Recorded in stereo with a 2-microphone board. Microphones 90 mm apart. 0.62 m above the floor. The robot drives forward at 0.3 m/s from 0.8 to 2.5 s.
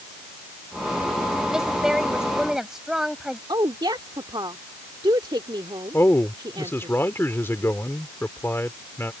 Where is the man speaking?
25° left (ahead or behind).